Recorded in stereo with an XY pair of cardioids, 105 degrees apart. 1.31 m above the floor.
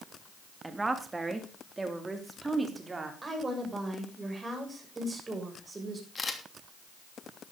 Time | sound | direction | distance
0.6 | a woman speaking | 15° right | 2.5 m
3.2 | a woman speaking | 25° right | 7 m
6.2 | a camera shutter | 25° left | 3 m